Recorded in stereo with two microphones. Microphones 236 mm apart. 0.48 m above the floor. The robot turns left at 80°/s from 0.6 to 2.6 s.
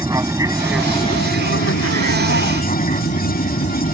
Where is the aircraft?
165° right; by 4.0 s 35° left.